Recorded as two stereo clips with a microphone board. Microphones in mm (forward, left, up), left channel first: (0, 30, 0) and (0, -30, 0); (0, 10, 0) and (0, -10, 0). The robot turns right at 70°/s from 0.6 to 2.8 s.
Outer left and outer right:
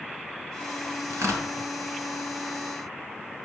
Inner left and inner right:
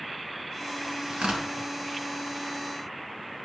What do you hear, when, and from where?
1.1 s tearing paper: 50° right (ahead or behind), 2.0 m; by 1.5 s 70° right (ahead or behind), 2.0 m